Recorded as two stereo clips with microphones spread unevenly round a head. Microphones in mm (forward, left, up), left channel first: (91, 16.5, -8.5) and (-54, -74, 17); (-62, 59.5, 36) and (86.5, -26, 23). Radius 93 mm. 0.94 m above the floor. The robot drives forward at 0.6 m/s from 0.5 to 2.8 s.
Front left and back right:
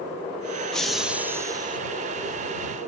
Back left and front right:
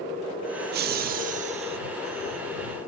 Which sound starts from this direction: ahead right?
Laughter, at 0.7 s.